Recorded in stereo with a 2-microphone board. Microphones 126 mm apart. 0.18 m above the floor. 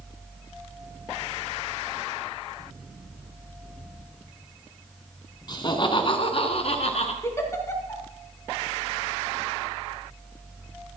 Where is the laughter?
35° left (ahead or behind), 1.5 m; by 7.1 s 55° left (ahead or behind), 2 m.